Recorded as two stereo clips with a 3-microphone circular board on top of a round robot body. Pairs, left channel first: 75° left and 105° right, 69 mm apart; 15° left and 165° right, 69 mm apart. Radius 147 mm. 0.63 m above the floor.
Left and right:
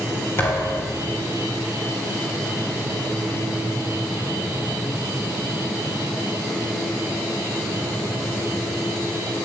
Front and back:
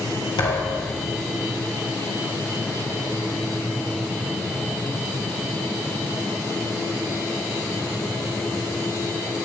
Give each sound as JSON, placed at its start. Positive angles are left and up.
{"t": 0.4, "sound": "a thud", "azimuth_deg": 20, "distance_m": 3.5}